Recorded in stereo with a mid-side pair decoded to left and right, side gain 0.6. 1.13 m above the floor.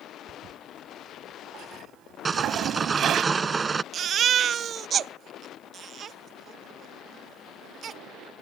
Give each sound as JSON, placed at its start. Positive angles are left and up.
{"t": 0.3, "sound": "a toilet flushing", "azimuth_deg": -55}
{"t": 2.2, "sound": "sawing", "azimuth_deg": -25}
{"t": 3.9, "sound": "a baby crying", "azimuth_deg": -45}